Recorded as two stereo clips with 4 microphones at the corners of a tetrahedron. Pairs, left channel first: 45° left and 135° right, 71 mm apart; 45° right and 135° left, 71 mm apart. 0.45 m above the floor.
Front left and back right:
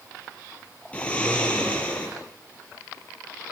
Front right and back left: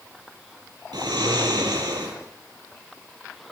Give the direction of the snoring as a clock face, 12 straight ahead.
8 o'clock.